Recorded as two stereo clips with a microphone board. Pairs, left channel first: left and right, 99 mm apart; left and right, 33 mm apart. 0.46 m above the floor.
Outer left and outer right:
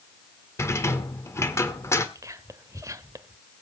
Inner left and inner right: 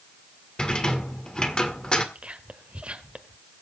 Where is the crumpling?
I don't hear crumpling.